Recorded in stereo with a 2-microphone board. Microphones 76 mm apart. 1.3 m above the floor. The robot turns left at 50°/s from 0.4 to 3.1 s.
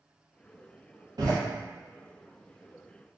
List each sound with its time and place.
1.2 s a door slam: 60° right (ahead or behind), 0.8 m; by 1.4 s 50° right (ahead or behind), 0.8 m